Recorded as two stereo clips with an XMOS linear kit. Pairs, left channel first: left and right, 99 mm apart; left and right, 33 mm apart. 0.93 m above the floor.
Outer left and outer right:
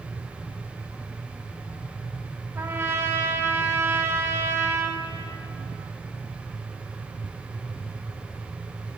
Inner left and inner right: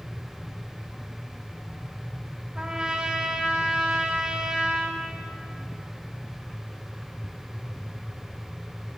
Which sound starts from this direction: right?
A trumpet, at 2.5 s.